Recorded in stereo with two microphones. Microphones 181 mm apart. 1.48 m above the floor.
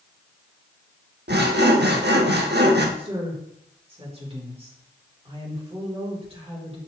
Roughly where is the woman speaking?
Right.